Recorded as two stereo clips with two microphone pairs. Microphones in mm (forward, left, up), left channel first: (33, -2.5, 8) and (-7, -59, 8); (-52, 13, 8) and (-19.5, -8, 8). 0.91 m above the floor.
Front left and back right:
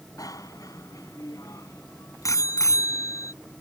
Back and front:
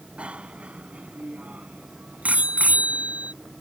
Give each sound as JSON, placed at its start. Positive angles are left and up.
{"t": 0.2, "sound": "a bicycle bell", "azimuth_deg": 25}